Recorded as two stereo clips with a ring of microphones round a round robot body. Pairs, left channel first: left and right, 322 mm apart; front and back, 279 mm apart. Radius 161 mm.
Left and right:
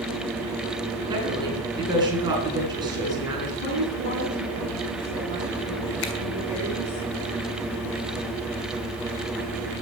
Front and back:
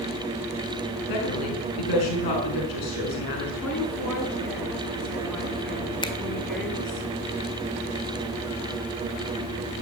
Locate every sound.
1.1 s a woman speaking: 10° right, 6 m
3.6 s a woman speaking: 85° left, 9 m
6.0 s a finger snap: 75° left, 1.8 m